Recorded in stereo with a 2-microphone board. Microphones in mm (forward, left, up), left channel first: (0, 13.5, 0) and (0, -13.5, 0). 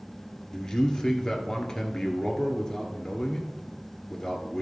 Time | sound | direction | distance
0.5 | a man speaking | 20° left (ahead or behind) | 1.7 m